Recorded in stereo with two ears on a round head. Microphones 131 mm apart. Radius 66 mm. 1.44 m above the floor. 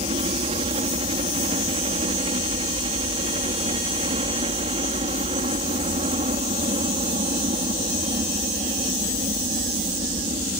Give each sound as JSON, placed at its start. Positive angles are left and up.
{"t": 0.0, "sound": "a helicopter", "side_deg": -40}